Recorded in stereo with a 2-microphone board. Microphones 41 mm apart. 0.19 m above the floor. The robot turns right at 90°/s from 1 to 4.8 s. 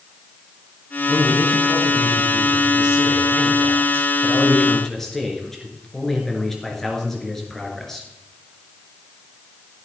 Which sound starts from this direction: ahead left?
A man speaking, at 1.1 s.